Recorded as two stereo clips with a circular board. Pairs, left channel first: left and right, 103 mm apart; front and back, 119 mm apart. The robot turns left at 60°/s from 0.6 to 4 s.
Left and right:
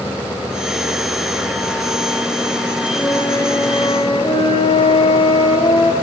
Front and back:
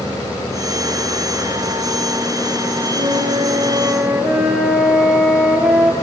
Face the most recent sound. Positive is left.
turn(degrees=100)